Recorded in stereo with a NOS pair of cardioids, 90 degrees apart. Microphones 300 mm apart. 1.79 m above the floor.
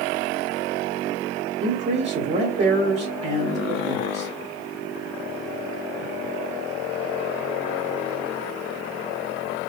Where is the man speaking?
40° right, 1.3 m.